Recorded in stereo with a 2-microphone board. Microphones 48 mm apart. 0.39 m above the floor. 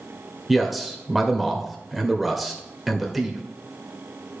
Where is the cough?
No cough in this recording.